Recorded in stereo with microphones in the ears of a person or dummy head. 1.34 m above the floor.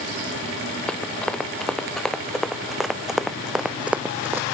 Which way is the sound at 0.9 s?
5° left (ahead or behind).